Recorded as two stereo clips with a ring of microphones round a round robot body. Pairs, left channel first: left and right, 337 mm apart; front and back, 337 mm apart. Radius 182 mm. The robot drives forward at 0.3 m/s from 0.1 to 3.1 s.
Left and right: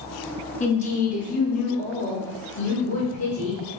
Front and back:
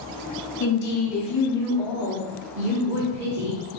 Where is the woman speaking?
30° left, 0.8 m; by 3.6 s 145° left, 0.7 m.